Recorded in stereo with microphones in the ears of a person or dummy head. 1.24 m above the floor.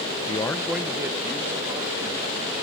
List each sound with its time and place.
0.3 s a man speaking: 25° left (ahead or behind); by 2.4 s 30° right (ahead or behind)